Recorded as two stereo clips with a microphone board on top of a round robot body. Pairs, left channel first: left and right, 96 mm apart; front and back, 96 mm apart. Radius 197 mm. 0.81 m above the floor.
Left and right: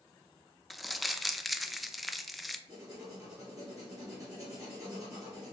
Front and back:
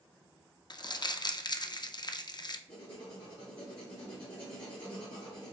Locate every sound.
0.7 s crumpling: straight ahead, 0.6 m
2.7 s writing: 35° right, 0.6 m